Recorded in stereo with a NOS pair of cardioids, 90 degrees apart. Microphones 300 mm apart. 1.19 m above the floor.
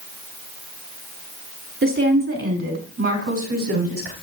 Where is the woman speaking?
40° right, 4 m; by 4.1 s 50° right, 5 m.